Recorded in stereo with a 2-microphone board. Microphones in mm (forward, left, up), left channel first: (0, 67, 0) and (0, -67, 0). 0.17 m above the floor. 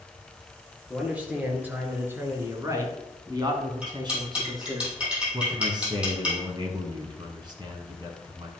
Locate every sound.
0.9 s a man speaking: 10° right (ahead or behind), 3 m; by 4.8 s 30° right (ahead or behind), 1.9 m
3.8 s cutlery clinking: 10° right (ahead or behind), 4 m
5.3 s a man speaking: 35° right (ahead or behind), 1.6 m